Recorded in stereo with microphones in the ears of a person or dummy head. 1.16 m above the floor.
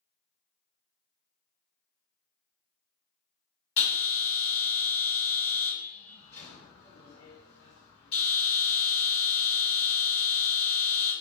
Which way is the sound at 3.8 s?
40° left (ahead or behind).